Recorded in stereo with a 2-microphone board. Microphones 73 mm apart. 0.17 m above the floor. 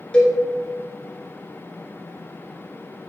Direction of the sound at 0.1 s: 15° left (ahead or behind).